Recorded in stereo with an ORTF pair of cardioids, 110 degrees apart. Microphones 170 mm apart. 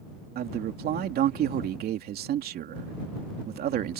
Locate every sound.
0.3 s a man speaking: 65° right